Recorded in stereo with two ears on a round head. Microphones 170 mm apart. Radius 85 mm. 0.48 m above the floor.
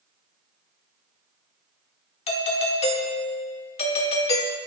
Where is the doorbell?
35° left (ahead or behind), 1.8 m.